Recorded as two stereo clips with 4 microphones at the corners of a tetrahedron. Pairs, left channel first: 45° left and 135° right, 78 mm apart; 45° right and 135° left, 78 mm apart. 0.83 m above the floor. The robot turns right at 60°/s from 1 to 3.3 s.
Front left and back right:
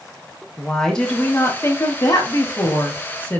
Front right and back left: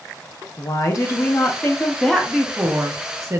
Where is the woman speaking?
35° right, 0.8 m; by 3.4 s 105° left, 0.8 m.